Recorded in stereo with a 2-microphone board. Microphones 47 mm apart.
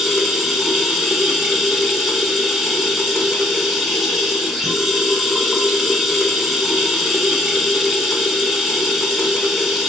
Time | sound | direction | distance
0.0 | running water | 5° right (ahead or behind) | 1.1 m